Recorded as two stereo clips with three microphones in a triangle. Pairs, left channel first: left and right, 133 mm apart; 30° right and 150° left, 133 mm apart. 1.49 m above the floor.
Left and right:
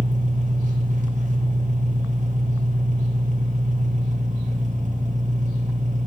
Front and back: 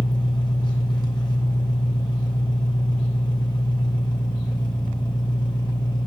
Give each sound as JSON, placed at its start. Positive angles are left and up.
{"t": 0.0, "sound": "an engine running", "azimuth_deg": -85, "distance_m": 1.1}